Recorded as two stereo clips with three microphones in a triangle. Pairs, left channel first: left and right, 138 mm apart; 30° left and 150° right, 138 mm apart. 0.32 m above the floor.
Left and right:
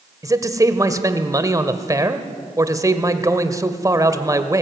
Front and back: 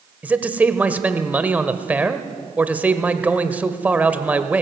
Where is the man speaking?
85° right, 1.3 m.